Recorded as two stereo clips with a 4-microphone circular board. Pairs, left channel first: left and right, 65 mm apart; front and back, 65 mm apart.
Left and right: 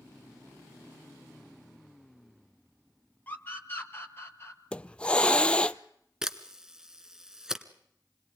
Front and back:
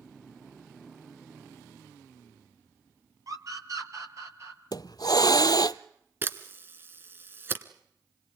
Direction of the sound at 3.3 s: 150° left.